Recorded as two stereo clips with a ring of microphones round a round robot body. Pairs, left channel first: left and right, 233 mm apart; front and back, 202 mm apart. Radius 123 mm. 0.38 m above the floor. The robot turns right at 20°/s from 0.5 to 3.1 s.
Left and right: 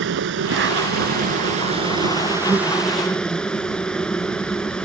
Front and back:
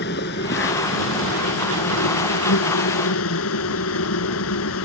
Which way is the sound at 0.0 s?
50° right.